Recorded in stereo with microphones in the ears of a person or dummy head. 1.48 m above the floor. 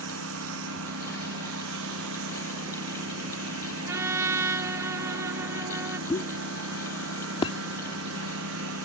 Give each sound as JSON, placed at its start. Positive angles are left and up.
{"t": 0.0, "sound": "a lawn mower", "side_deg": -75}
{"t": 3.9, "sound": "a trumpet", "side_deg": -15}
{"t": 6.1, "sound": "a pop", "side_deg": 25}